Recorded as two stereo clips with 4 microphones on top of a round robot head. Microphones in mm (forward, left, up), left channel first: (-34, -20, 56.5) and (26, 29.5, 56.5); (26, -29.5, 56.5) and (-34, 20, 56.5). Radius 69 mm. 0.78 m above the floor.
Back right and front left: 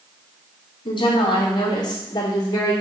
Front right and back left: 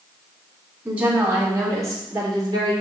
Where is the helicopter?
No helicopter in this recording.